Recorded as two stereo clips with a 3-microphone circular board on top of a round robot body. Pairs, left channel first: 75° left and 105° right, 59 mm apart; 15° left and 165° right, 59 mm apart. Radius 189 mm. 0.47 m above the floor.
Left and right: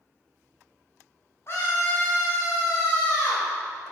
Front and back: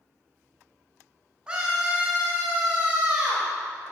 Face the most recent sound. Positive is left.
turn(degrees=115)